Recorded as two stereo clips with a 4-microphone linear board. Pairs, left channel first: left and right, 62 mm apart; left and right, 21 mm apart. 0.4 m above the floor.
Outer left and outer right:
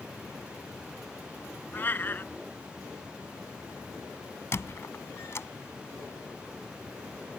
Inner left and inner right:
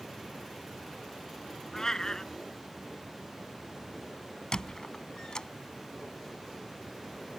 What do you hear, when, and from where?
1.7 s a cat meowing: 30° left (ahead or behind)
4.5 s a squeak: 45° left (ahead or behind)